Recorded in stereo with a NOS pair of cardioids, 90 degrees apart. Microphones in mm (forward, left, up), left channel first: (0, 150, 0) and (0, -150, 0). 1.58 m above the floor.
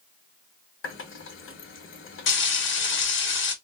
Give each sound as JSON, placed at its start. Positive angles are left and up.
{"t": 0.8, "sound": "a running tap", "azimuth_deg": 45, "distance_m": 1.9}
{"t": 2.3, "sound": "frying", "azimuth_deg": 40, "distance_m": 1.8}